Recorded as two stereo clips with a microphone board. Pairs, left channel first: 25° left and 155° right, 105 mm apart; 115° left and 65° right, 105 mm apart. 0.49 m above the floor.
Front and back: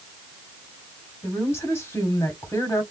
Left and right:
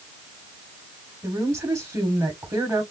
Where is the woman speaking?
25° right, 1.5 m.